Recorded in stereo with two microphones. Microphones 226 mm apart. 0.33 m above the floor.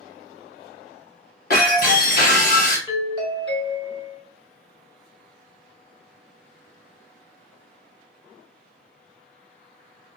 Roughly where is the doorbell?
Left.